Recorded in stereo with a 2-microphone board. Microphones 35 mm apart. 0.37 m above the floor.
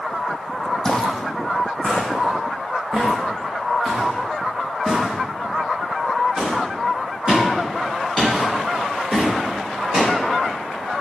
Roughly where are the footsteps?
Centre.